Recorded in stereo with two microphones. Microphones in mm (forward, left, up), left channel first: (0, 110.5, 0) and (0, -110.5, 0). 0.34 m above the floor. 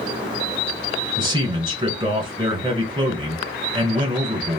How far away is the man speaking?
About 1.2 m.